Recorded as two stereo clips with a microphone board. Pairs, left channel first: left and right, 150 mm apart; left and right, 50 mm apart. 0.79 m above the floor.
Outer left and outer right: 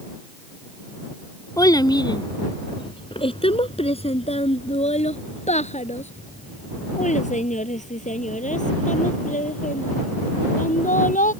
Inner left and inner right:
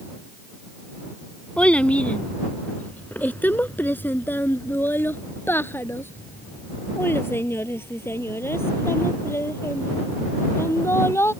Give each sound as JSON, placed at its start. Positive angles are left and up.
{"t": 1.6, "sound": "a child speaking", "side_deg": 25}